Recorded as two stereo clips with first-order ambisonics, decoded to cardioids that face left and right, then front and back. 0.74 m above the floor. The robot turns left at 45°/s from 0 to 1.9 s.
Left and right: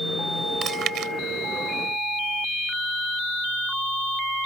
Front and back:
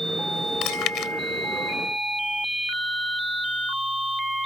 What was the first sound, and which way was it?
Chewing, 30° right.